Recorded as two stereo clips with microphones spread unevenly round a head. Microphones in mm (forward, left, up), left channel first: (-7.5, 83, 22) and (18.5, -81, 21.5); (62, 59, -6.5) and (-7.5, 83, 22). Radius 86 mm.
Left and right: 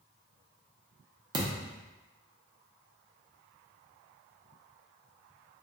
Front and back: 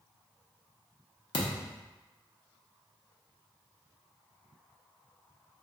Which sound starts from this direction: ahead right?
A thud, at 1.3 s.